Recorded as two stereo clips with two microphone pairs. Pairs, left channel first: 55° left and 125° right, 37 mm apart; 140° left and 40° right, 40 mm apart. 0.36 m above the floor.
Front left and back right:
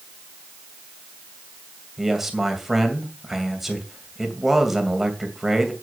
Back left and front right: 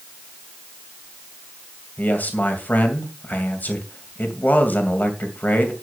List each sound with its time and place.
2.0 s a man speaking: 155° left, 2.5 m